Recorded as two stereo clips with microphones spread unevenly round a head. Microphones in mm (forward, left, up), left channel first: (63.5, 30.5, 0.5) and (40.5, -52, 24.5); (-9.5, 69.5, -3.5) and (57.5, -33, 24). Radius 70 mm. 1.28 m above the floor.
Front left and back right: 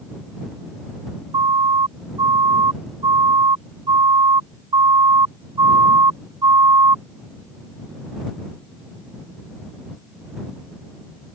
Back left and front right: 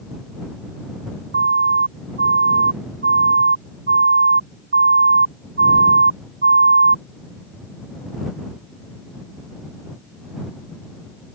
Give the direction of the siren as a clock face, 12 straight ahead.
3 o'clock.